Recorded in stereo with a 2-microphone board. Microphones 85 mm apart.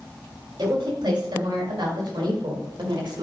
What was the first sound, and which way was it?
A woman speaking, 60° right (ahead or behind).